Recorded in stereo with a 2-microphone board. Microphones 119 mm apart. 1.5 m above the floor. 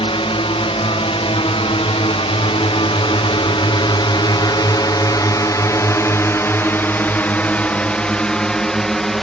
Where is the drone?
50° left (ahead or behind); by 9.2 s centre (ahead or behind).